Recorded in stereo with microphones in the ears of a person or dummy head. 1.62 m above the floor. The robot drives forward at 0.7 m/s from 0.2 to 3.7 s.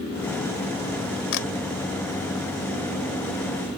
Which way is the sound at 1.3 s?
60° left (ahead or behind).